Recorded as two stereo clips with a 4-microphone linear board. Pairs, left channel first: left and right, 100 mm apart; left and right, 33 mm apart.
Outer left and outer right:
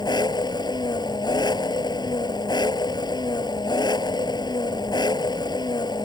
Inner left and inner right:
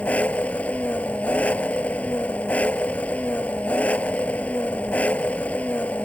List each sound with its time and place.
0.0 s an engine running: 45° left (ahead or behind)